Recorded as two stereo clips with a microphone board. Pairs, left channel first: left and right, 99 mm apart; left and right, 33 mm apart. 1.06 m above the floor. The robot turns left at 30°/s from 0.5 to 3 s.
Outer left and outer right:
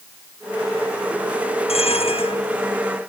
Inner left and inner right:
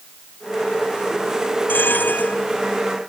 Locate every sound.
1.7 s a bell: 80° left; by 2.4 s 65° left (ahead or behind)